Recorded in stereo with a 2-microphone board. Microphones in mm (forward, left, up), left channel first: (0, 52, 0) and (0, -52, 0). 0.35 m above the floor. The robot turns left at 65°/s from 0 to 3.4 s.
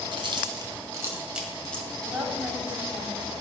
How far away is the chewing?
About 1.7 m.